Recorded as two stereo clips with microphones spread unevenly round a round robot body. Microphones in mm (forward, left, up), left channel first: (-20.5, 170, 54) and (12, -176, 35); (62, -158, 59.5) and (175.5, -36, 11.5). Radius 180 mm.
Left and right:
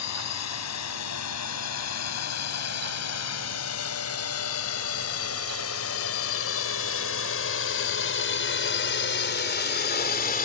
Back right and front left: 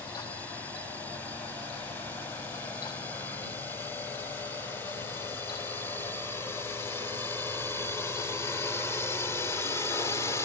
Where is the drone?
135° left.